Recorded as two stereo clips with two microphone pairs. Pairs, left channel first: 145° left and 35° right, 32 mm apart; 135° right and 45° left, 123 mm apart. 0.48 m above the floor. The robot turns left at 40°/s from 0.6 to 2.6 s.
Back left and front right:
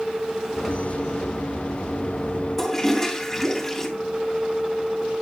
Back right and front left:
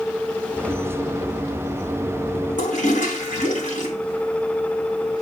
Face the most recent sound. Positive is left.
turn(degrees=-135)